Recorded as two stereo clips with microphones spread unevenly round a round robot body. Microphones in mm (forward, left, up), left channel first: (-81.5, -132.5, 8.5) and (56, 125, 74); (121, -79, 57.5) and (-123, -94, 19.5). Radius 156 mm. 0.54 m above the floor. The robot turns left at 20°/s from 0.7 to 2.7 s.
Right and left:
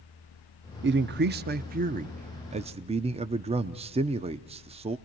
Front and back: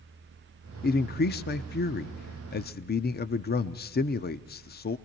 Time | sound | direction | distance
0.8 | a man speaking | 25° left | 0.7 m